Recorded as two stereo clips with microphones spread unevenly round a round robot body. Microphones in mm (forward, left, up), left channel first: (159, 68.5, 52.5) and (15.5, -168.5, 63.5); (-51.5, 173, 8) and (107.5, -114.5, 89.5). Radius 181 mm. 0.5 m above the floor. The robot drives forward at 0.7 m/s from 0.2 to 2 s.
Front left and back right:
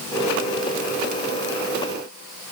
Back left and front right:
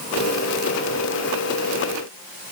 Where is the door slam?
I don't hear a door slam.